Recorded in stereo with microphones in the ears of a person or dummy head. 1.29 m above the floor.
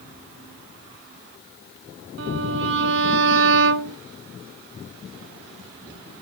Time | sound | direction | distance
2.2 | a violin | 70° right (ahead or behind) | 0.7 m